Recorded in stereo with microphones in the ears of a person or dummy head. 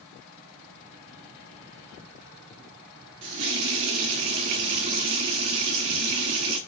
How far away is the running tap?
About 0.6 m.